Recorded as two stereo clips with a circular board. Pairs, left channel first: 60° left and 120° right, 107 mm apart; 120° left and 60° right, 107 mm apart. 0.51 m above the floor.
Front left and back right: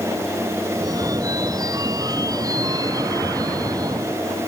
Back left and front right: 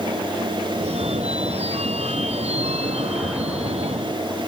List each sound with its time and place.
0.7 s a phone ringing: 65° right